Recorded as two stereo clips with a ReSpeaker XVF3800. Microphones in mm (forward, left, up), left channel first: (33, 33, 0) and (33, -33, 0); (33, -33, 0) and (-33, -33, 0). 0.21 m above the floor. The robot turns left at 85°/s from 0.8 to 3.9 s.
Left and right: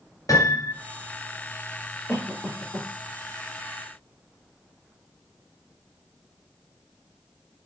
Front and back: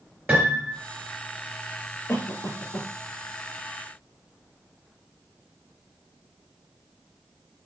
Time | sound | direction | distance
0.3 | a piano | 115° left | 3 m
2.1 | a cough | 50° left | 4 m